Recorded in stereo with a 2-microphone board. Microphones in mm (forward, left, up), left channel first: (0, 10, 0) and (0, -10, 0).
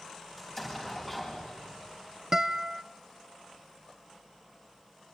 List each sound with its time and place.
0.4 s an explosion: 15° left (ahead or behind), 10 m
2.3 s a guitar: 25° right (ahead or behind), 0.8 m